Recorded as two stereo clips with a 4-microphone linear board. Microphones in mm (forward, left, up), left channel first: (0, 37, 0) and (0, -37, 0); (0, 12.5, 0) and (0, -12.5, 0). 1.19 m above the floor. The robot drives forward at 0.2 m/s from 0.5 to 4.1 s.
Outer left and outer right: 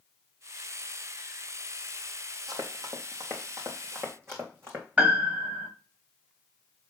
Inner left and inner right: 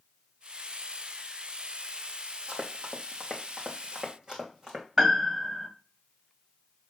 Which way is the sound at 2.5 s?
55° right (ahead or behind).